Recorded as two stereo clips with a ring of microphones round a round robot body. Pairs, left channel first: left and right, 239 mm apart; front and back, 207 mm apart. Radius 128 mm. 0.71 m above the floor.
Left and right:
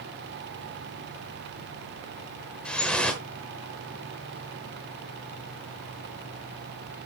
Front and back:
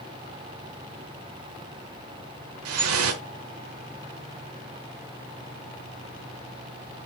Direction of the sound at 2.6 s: 175° left.